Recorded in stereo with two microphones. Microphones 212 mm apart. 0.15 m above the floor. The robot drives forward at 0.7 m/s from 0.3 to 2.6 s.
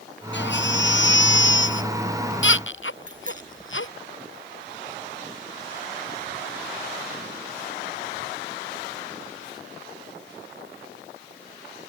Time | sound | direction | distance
0.3 | a baby crying | 65° left (ahead or behind) | ?
3.1 | a bicycle bell | 40° right (ahead or behind) | ?